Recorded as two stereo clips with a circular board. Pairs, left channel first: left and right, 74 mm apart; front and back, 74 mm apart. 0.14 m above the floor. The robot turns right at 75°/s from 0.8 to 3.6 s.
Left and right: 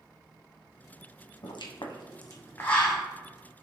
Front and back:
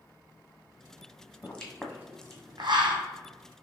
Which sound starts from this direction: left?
A pop, at 1.4 s.